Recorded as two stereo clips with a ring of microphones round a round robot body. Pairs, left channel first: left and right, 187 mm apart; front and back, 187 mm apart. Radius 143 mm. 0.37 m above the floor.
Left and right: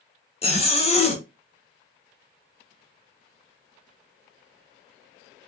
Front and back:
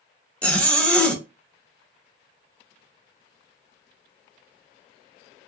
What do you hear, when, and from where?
0.4 s a zipper: 80° left, 0.9 m